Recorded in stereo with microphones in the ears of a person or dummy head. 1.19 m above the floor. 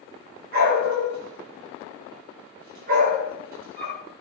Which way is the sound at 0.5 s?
55° right (ahead or behind).